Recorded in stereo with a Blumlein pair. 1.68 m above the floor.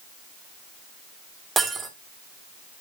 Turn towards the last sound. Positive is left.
turn(degrees=-10)